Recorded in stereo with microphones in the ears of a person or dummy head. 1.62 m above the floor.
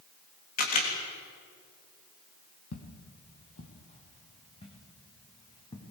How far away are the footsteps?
About 2.5 m.